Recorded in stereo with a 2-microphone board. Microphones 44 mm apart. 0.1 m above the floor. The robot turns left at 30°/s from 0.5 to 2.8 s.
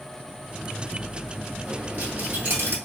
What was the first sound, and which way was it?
A dropped coin, 40° right.